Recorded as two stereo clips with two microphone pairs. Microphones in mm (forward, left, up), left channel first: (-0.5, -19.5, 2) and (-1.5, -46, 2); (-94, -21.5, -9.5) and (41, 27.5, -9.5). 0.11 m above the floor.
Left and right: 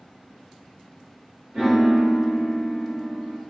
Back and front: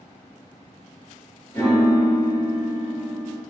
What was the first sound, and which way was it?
A piano, 100° right.